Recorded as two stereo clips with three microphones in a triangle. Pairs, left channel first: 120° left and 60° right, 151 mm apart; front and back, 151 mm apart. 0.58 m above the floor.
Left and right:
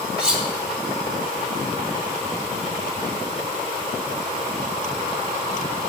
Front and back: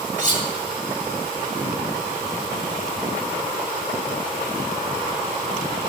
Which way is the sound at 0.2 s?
145° right.